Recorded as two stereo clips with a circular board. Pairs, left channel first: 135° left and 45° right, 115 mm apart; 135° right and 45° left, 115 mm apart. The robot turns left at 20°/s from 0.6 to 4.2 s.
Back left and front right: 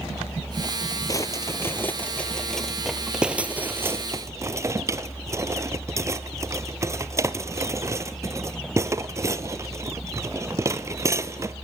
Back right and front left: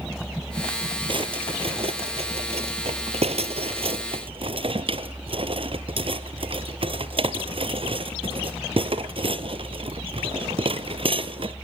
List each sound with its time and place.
1.1 s a drawer: 80° left, 0.7 m; by 11.6 s 15° left, 0.7 m